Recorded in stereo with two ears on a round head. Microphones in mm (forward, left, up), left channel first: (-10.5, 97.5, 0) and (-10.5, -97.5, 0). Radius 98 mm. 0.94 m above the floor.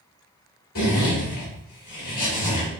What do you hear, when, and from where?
0.8 s a zipper: 45° left (ahead or behind), 2.0 m